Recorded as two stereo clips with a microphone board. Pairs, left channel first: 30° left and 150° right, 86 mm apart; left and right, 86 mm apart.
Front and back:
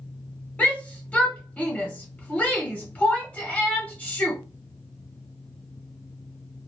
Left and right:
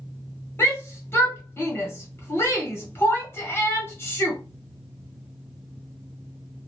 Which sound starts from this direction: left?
A shout, at 0.6 s.